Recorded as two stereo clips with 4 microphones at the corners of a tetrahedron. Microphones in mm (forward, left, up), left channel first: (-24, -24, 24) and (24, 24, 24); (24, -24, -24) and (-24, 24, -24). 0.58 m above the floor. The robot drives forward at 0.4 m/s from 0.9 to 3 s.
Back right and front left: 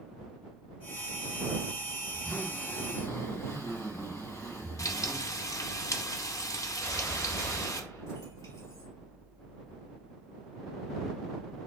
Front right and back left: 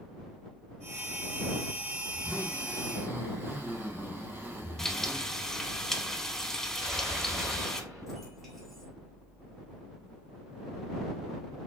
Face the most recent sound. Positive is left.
turn(degrees=-135)